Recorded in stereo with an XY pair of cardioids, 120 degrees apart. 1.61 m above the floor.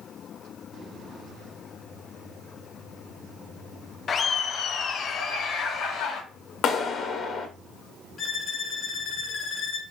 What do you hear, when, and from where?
4.1 s laughter: 40° left, 0.7 m; by 6.2 s 70° left, 1.7 m
6.6 s a clap: 60° left, 0.9 m
8.2 s a violin: 45° left, 0.7 m